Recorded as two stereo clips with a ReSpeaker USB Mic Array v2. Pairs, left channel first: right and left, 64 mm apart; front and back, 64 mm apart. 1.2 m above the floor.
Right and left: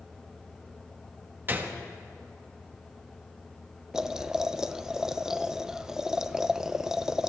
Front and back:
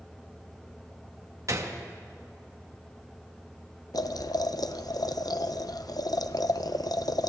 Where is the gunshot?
145° left, 1.7 m.